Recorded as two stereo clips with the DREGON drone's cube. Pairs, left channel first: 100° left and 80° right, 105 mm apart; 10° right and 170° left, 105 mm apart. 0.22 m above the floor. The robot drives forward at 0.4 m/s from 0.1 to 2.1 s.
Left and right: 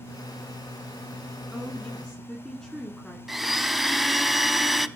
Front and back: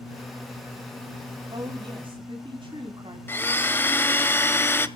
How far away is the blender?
About 1.0 m.